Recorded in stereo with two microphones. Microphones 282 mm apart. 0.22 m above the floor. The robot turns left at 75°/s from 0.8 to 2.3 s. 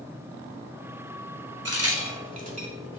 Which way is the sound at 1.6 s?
60° right (ahead or behind).